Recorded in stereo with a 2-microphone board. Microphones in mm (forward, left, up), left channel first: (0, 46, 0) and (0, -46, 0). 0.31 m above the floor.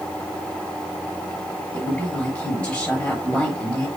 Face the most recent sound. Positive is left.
turn(degrees=15)  # may be behind; listen again after turning